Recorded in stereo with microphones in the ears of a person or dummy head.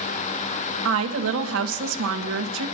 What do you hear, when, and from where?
0.8 s a woman speaking: 85° right, 1.6 m